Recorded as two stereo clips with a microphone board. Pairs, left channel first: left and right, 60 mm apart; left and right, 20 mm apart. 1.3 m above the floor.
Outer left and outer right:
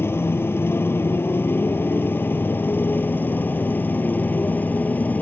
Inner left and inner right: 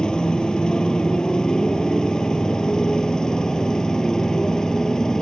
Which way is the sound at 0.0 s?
45° left (ahead or behind).